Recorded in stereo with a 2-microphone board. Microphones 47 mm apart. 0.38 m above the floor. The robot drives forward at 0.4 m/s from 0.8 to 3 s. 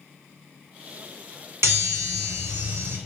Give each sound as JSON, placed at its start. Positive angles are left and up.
{"t": 1.6, "sound": "a chime", "side_deg": -80, "distance_m": 0.9}